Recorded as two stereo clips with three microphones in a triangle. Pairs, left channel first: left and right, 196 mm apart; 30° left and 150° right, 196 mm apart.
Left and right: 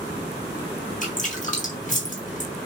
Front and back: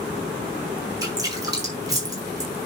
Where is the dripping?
140° left, 4.5 m.